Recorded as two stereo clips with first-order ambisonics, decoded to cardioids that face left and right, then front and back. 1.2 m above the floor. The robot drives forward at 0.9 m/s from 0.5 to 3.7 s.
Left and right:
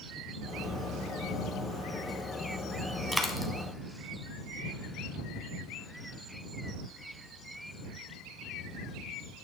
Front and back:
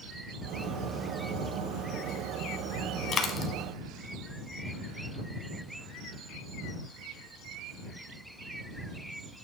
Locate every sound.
3.1 s a dropped coin: 5° left, 1.2 m; by 3.5 s 20° left, 1.0 m